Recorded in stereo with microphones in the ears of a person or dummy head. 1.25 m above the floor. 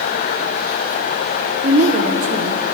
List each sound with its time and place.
1.6 s a woman speaking: 40° right (ahead or behind), 0.7 m